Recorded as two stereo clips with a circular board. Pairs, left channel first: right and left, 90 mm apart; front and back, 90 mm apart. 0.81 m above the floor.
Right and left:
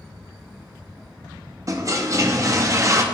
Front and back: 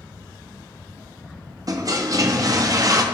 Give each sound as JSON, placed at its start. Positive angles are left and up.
{"t": 1.7, "sound": "a toilet flushing", "azimuth_deg": 135, "distance_m": 0.7}